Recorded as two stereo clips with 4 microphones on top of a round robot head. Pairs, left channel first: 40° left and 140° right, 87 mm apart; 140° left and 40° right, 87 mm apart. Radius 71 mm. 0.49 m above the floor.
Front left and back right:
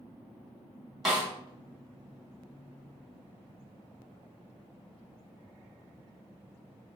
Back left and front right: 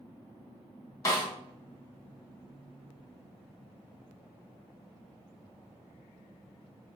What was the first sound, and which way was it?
A snare drum, 140° left.